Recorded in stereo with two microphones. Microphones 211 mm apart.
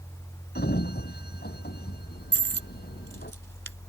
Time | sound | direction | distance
0.6 | a sliding door | 50° left (ahead or behind) | ?
2.3 | a dropped coin | 65° right (ahead or behind) | ?